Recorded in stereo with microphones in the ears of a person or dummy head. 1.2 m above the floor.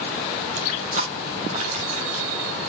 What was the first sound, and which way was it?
Crushing, 45° right (ahead or behind).